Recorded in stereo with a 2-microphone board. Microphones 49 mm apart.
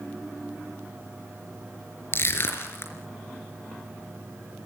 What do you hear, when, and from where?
2.1 s crushing: 55° left (ahead or behind), 3.5 m